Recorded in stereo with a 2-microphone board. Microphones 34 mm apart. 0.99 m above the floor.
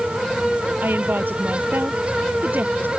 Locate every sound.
0.8 s a woman speaking: 85° right